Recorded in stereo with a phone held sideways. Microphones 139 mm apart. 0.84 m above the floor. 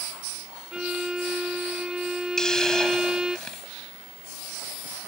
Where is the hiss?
5° left (ahead or behind).